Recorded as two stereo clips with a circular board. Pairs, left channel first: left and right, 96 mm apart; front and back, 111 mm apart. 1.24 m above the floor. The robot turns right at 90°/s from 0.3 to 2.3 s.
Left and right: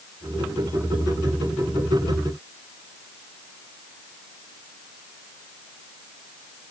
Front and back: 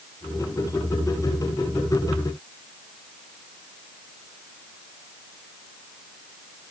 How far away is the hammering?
I don't hear hammering.